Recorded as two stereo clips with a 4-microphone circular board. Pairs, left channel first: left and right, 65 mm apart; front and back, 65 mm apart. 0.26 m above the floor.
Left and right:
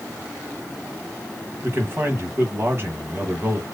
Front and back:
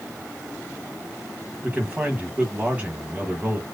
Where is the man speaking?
120° right, 1.6 m.